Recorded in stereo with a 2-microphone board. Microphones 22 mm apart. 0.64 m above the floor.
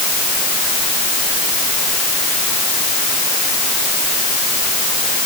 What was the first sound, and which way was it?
Only background noise.